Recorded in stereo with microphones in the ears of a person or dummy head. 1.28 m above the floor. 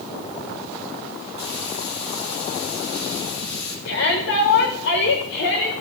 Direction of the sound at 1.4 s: 80° left.